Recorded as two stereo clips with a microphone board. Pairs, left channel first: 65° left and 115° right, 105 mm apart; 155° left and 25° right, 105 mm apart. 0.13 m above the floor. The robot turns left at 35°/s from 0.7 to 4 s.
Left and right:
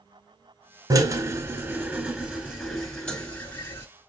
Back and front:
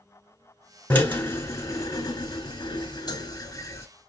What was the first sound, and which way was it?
A drill, 135° right.